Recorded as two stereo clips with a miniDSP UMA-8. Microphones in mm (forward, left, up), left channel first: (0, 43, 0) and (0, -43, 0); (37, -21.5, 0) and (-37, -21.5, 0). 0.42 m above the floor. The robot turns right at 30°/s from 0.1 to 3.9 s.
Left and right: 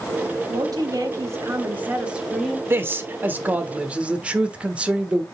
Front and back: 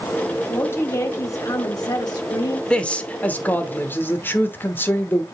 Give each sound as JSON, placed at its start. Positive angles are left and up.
{"t": 0.5, "sound": "a woman speaking", "azimuth_deg": -60, "distance_m": 1.9}
{"t": 2.7, "sound": "a man speaking", "azimuth_deg": -65, "distance_m": 1.0}